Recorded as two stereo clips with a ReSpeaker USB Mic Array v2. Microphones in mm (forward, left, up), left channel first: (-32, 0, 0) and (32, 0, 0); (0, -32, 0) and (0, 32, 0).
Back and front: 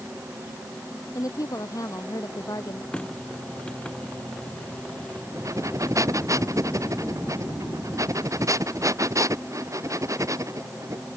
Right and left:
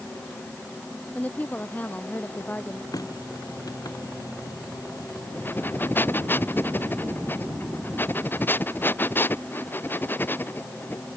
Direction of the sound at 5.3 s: 30° right.